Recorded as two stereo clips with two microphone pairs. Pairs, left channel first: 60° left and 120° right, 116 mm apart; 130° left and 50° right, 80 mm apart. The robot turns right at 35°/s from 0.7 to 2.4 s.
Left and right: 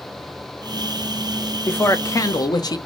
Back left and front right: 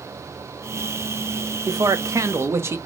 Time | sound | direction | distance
1.7 | a man speaking | 20° right | 0.6 m